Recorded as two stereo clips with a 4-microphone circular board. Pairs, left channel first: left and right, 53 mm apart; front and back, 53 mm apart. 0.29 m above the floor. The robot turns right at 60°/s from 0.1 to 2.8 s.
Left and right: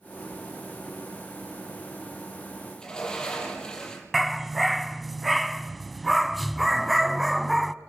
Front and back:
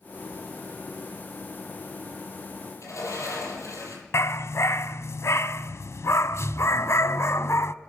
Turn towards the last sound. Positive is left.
turn(degrees=0)